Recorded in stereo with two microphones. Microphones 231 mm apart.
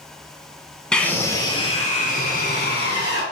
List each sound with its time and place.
0.9 s a scream: 5° left (ahead or behind), 1.2 m; by 3.2 s 55° left (ahead or behind), 1.6 m